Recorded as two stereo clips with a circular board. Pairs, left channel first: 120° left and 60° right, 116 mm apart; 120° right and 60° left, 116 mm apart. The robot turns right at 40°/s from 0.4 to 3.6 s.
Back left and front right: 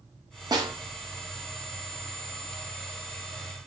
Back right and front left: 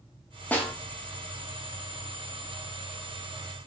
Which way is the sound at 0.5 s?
55° right.